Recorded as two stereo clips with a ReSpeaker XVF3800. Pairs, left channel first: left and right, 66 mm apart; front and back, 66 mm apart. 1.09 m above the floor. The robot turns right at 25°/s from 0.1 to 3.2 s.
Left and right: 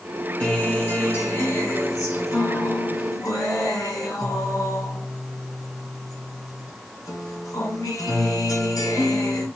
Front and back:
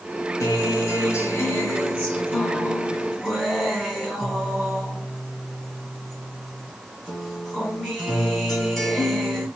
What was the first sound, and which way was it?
A guitar, 15° left.